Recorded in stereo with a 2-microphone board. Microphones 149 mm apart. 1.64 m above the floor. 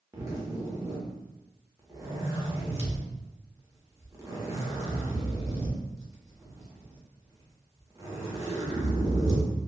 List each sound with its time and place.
0.1 s a zipper: 20° right (ahead or behind), 0.9 m